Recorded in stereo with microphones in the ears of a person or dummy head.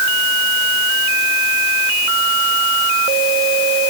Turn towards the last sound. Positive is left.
No sound to turn to.